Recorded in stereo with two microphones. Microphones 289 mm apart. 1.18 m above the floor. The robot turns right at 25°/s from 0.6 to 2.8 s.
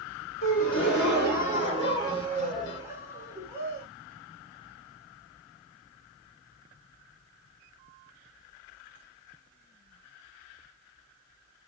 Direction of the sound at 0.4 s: 130° left.